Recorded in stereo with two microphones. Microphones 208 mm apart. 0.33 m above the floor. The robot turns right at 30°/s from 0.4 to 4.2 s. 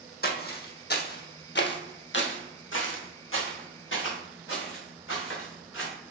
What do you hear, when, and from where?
0.2 s footsteps: 50° left (ahead or behind), 0.8 m; by 5.9 s 75° left (ahead or behind), 2.5 m